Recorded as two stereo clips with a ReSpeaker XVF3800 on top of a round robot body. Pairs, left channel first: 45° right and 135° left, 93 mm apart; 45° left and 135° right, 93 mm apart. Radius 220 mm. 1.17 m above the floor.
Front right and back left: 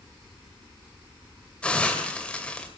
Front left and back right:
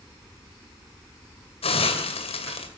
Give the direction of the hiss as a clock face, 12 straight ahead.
11 o'clock.